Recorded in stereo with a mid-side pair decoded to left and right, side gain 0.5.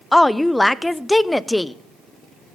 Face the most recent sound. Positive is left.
turn(degrees=15)